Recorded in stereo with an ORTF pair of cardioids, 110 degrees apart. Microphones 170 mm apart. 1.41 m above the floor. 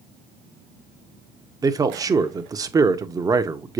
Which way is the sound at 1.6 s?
20° right.